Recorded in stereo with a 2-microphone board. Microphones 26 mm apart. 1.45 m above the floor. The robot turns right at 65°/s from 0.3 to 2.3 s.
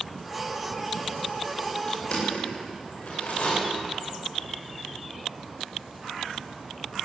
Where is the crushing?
35° left (ahead or behind), 8 m; by 3.5 s 60° left (ahead or behind), 8 m.